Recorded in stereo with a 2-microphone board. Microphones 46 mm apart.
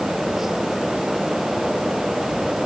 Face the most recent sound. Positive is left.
No sound to turn to.